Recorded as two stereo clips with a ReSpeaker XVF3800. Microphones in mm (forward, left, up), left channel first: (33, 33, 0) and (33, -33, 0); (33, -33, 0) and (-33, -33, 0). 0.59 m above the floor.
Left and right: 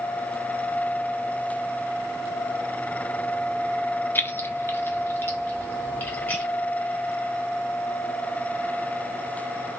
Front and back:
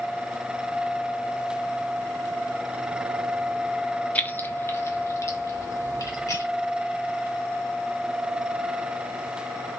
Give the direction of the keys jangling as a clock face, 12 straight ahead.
10 o'clock.